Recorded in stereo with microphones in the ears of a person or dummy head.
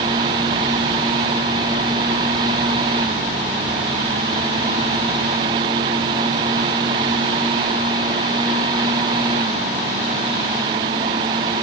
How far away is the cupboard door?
No cupboard door in this recording.